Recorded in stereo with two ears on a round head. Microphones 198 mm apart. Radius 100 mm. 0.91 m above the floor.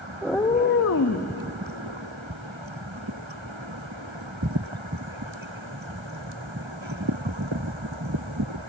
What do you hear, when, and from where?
0.2 s a cat meowing: 5° right (ahead or behind), 0.6 m; by 1.3 s 85° left, 0.9 m